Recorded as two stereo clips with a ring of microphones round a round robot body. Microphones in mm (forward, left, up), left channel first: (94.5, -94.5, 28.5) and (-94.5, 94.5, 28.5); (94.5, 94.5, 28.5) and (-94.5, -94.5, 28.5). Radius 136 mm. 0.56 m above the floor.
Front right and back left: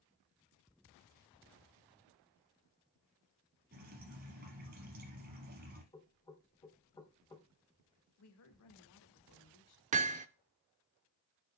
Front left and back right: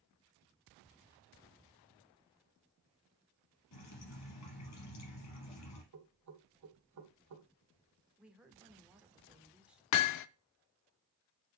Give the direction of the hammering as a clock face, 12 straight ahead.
10 o'clock.